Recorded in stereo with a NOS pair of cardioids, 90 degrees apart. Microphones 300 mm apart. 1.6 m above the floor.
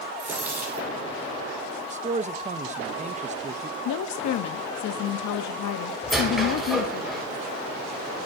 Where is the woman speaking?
70° left, 1.0 m.